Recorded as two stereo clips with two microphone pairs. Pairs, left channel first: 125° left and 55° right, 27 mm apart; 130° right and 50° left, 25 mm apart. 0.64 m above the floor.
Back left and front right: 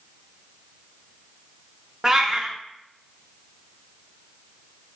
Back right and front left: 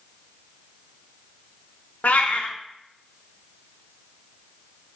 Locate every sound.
2.0 s a cat meowing: 125° right, 0.5 m